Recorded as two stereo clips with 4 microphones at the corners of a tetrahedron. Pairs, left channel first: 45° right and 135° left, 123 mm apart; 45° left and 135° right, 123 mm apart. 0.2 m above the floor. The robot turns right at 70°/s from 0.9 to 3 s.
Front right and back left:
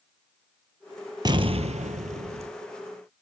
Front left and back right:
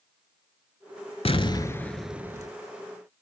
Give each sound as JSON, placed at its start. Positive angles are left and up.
{"t": 1.2, "sound": "an explosion", "azimuth_deg": 80, "distance_m": 0.7}